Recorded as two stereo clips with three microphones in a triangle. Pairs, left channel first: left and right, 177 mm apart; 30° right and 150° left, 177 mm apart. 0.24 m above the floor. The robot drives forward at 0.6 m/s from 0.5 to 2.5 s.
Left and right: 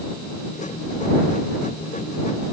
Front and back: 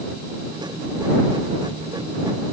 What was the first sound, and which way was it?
Only background noise.